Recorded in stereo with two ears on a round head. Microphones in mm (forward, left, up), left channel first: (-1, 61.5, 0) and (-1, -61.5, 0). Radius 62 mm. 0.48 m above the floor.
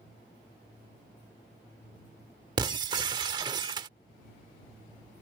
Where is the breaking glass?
30° right (ahead or behind).